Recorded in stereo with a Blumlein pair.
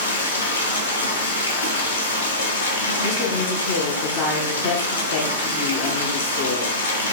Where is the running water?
70° left, 0.8 m.